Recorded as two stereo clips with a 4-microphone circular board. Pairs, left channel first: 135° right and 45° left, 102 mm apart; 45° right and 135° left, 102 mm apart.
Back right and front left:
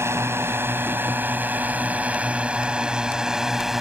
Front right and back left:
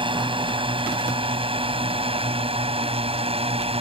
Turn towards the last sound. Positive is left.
turn(degrees=135)